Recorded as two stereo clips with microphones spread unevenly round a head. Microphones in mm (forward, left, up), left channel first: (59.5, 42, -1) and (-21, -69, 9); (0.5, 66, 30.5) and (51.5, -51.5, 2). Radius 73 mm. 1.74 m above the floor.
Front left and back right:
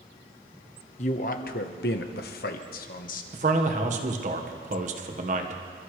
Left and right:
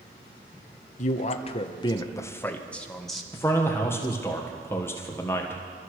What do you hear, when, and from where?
1.0 s a man speaking: 100° left, 1.2 m; by 3.2 s 25° left, 1.7 m
3.3 s a man speaking: 170° right, 1.6 m